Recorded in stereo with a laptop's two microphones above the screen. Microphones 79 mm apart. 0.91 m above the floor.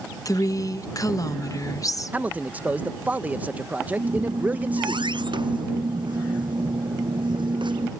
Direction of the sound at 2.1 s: 20° right (ahead or behind).